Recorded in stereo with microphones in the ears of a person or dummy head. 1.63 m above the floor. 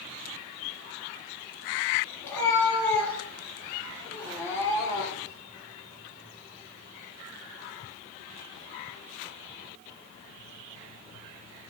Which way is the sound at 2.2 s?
10° left (ahead or behind).